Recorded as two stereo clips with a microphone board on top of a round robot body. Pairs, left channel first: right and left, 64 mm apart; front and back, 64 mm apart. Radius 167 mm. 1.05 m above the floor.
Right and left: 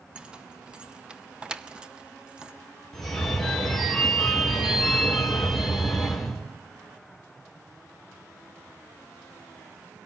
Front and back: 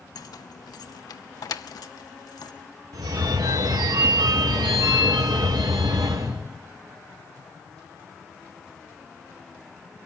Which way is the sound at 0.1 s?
15° left.